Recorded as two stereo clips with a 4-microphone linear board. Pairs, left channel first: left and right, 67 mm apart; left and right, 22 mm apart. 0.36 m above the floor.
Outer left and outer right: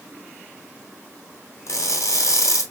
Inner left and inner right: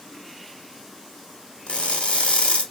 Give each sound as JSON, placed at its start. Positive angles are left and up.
{"t": 1.7, "sound": "crushing", "side_deg": 50, "distance_m": 2.0}